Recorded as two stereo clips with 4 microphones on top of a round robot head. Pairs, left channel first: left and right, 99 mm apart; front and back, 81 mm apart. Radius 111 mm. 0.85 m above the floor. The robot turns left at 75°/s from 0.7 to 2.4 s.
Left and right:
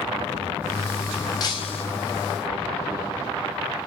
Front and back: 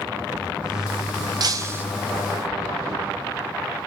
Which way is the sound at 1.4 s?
145° left.